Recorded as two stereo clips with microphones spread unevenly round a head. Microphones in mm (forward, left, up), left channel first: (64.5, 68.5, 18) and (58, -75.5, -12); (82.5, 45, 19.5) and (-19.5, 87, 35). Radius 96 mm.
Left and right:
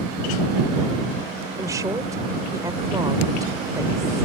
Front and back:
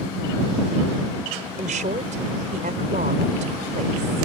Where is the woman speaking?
170° right.